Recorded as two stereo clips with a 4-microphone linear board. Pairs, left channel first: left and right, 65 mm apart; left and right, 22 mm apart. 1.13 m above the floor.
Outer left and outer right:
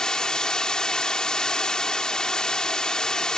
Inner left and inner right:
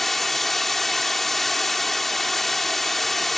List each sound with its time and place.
0.0 s running water: 15° left (ahead or behind)